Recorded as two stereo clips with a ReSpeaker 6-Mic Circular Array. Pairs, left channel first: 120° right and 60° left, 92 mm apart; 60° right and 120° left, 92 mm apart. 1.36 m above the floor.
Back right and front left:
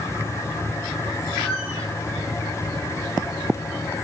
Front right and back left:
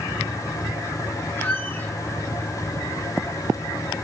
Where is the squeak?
130° right, 8.5 m.